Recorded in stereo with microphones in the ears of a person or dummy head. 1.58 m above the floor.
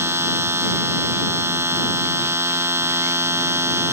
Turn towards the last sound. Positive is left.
turn(degrees=-15)  # may be behind; listen again after turning